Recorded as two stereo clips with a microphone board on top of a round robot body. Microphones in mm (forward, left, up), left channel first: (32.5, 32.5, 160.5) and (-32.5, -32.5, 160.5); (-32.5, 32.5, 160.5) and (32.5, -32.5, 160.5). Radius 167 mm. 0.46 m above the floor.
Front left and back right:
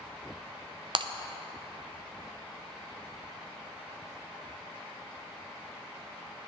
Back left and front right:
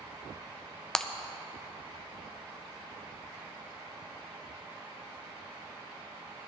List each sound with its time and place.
0.9 s breaking glass: 140° right, 0.7 m